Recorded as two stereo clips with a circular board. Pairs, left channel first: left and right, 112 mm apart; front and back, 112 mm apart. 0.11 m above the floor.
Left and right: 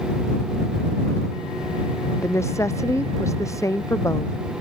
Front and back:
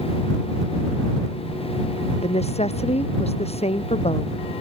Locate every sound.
2.2 s a woman speaking: 25° left; by 4.3 s 30° left